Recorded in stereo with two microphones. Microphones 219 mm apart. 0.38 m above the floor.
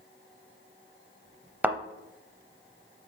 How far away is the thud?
About 0.6 m.